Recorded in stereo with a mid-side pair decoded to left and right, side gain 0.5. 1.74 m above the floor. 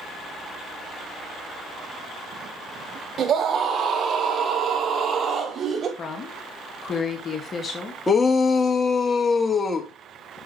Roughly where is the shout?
Ahead left.